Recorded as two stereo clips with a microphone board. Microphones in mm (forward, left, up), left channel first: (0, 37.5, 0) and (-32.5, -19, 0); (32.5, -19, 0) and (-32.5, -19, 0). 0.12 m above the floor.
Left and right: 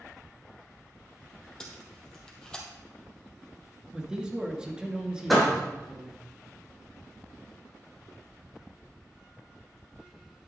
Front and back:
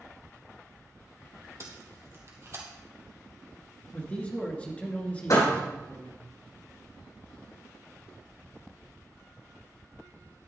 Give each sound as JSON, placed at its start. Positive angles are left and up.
{"t": 1.6, "sound": "tape being pulled", "azimuth_deg": 140, "distance_m": 2.0}
{"t": 3.9, "sound": "a man speaking", "azimuth_deg": -50, "distance_m": 1.8}
{"t": 5.3, "sound": "a door slam", "azimuth_deg": -30, "distance_m": 4.0}